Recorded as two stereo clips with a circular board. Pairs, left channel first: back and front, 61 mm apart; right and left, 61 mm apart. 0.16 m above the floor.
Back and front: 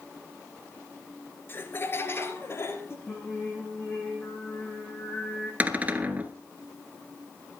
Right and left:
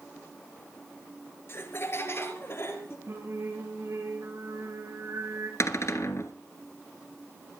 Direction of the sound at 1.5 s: 135° right.